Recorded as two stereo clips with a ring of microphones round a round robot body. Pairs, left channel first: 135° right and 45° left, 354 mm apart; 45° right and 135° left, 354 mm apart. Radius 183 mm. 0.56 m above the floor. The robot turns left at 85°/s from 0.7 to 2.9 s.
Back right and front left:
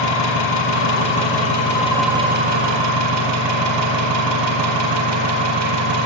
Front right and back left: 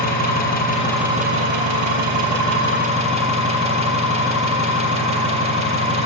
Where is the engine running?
110° right, 6.5 m; by 6.1 s 60° left, 6.5 m.